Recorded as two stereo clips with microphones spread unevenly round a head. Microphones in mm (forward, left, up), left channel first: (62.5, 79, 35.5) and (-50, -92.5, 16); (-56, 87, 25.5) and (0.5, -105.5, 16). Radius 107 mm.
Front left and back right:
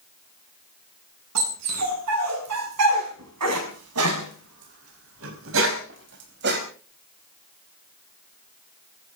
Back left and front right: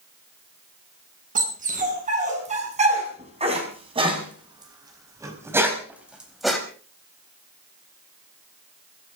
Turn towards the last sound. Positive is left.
turn(degrees=-165)